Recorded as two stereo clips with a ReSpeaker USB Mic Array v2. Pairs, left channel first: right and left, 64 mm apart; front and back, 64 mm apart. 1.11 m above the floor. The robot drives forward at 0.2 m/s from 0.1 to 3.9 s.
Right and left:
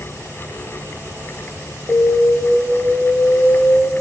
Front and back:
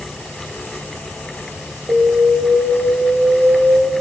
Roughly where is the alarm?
Behind right.